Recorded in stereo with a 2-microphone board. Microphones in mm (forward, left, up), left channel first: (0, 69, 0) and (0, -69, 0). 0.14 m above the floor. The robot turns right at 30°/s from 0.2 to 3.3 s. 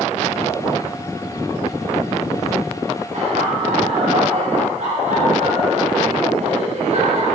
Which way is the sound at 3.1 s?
65° right (ahead or behind).